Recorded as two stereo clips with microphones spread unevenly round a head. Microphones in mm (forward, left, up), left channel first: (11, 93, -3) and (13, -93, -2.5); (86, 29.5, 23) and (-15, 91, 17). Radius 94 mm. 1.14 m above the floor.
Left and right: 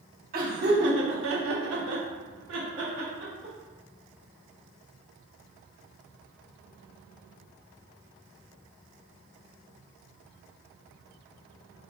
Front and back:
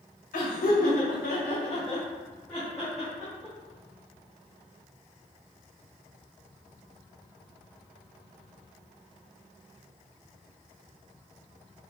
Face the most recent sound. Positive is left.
turn(degrees=-135)